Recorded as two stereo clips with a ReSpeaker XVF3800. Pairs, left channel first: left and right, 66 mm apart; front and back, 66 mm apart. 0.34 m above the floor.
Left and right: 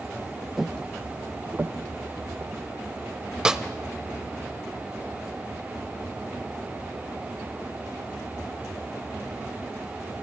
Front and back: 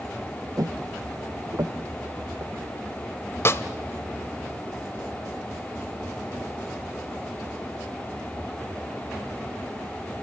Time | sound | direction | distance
0.6 | footsteps | straight behind | 0.7 m
3.5 | a snare drum | 15° right | 0.9 m